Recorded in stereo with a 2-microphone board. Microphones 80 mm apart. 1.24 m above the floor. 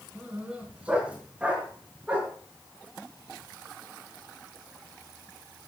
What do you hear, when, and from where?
0.1 s a dog barking: 15° right (ahead or behind), 4.5 m